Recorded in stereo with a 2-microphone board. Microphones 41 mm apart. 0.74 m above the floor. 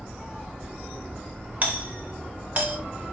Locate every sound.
1.6 s a doorbell: 40° right (ahead or behind), 4 m